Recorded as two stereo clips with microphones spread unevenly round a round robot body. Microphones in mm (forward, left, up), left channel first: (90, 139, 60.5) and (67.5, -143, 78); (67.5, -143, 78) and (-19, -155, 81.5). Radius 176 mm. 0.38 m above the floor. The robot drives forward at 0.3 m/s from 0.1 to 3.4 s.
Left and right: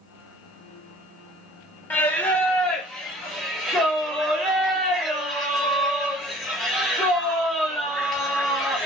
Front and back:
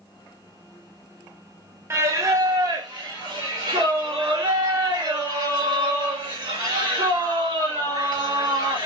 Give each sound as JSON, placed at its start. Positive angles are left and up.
{"t": 1.9, "sound": "singing", "azimuth_deg": 160, "distance_m": 0.6}